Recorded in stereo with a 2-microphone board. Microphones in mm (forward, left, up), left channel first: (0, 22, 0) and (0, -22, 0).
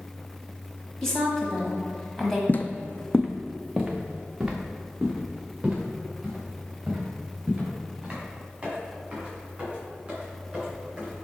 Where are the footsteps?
50° left (ahead or behind), 0.5 m; by 11.2 s 25° right (ahead or behind), 6 m.